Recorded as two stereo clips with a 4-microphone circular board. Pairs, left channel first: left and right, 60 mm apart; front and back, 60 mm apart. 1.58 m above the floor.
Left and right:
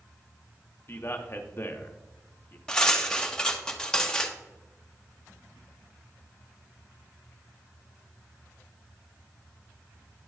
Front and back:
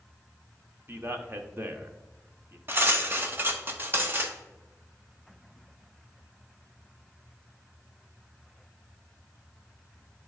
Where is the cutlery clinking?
155° left, 0.8 m.